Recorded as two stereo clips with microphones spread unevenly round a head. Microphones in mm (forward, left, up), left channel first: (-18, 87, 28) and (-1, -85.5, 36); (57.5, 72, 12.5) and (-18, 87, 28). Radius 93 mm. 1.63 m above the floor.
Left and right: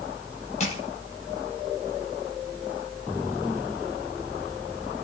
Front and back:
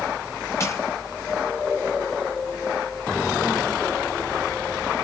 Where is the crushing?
40° left, 4.5 m.